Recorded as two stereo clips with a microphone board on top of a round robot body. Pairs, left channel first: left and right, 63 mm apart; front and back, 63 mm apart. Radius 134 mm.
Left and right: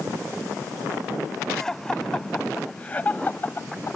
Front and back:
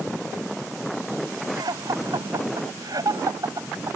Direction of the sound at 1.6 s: 175° left.